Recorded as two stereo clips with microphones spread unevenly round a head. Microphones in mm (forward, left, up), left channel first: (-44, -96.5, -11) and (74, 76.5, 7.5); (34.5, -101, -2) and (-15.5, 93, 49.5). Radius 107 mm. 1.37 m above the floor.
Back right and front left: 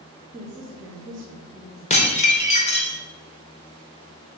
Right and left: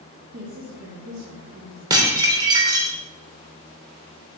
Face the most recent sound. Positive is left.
turn(degrees=175)